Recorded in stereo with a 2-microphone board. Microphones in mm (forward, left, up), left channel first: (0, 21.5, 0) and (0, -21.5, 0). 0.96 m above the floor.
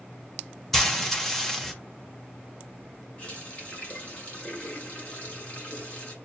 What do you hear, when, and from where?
0.7 s frying: 5° left (ahead or behind), 0.8 m
3.2 s a running tap: 35° left (ahead or behind), 2 m